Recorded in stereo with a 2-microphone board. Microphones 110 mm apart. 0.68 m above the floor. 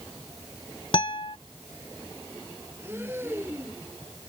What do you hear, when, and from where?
0.9 s a guitar: 50° left (ahead or behind)
2.8 s breathing: 20° right (ahead or behind)